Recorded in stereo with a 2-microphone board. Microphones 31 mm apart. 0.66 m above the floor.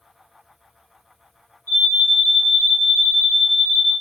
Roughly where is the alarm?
Left.